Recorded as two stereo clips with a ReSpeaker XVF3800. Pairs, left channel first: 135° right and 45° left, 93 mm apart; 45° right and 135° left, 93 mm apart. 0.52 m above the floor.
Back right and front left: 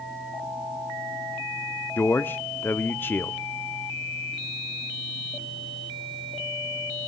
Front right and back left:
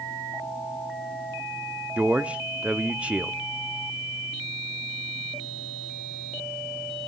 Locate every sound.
2.0 s a man speaking: 170° right, 0.7 m